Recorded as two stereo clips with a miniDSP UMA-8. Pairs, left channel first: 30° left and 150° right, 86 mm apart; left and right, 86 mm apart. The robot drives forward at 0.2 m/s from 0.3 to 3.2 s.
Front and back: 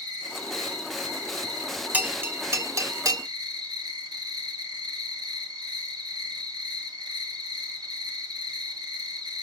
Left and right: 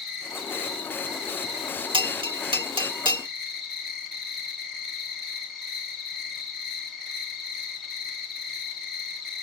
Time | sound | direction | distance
0.0 | an insect | 175° right | 3 m
1.9 | a bell | 80° right | 0.5 m